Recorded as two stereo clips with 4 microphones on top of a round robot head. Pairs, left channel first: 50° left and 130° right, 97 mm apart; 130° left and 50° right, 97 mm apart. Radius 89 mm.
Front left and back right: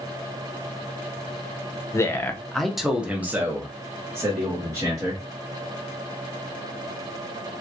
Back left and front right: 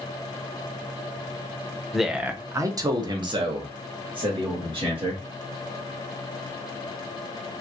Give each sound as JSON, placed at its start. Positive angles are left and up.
{"t": 1.9, "sound": "a man speaking", "azimuth_deg": 40, "distance_m": 0.7}